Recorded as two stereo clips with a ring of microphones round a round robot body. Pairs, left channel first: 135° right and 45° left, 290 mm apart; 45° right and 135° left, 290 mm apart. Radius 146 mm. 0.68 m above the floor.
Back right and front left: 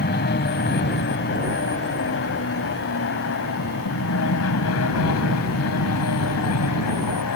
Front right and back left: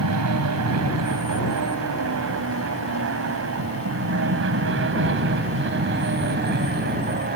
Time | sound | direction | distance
0.0 | an aircraft | 170° left | ?